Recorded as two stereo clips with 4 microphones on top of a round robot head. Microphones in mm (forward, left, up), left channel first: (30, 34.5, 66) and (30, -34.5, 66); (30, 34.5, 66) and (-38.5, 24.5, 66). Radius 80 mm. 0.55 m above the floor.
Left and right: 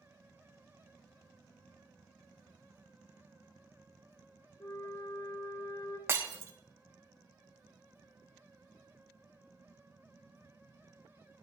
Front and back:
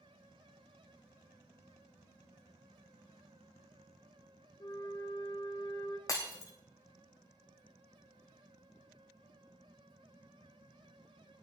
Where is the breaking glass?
35° right, 2.5 m.